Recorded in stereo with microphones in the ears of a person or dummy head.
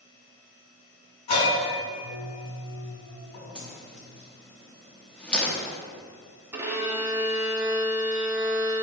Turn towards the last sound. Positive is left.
turn(degrees=-15)  # may be behind; listen again after turning